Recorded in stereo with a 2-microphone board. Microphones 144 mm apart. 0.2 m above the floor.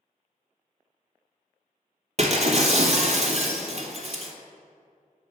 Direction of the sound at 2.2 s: 50° right (ahead or behind).